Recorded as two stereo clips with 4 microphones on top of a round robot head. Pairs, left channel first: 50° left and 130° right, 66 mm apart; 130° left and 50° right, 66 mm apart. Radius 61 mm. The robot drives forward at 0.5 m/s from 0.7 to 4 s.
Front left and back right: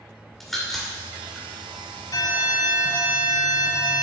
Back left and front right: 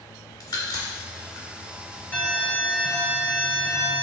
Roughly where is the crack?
Behind left.